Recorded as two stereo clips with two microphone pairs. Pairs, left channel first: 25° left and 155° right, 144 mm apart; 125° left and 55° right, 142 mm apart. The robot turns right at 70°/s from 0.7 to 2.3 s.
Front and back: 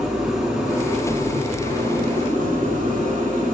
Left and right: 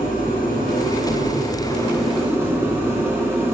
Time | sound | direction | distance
0.0 | an engine running | 120° left | 7 m